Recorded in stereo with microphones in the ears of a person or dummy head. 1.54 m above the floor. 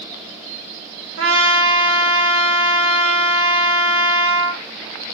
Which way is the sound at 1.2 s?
75° right (ahead or behind).